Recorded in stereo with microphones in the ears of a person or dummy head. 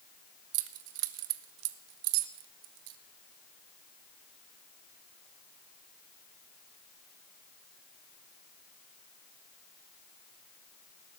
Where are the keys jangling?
70° right (ahead or behind), 1.0 m.